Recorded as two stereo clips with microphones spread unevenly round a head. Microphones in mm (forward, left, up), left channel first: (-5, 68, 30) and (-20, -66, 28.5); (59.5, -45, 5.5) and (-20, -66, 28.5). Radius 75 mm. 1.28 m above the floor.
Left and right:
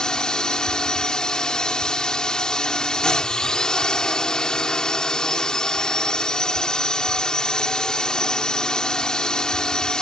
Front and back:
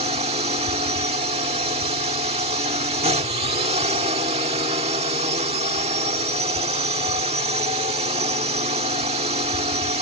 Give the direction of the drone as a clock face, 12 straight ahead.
6 o'clock.